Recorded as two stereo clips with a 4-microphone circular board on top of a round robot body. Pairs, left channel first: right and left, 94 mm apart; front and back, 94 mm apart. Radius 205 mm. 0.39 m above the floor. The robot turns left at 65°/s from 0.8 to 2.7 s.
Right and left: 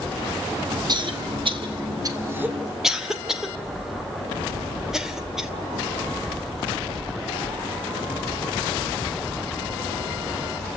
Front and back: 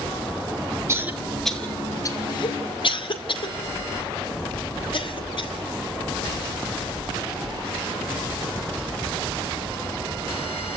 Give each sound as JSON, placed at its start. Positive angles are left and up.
{"t": 0.9, "sound": "a cough", "azimuth_deg": 125, "distance_m": 2.5}